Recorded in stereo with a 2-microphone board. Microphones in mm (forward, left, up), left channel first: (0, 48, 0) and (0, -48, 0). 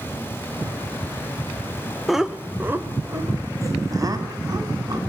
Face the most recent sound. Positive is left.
turn(degrees=-45)  # may be behind; listen again after turning